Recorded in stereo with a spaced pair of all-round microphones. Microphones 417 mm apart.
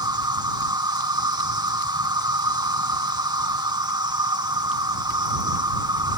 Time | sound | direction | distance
0.0 | an insect | 10° right (ahead or behind) | ?